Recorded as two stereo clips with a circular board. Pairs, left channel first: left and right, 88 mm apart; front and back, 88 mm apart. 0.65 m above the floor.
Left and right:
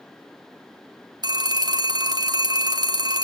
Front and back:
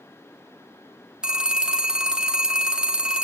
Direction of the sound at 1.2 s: 100° right.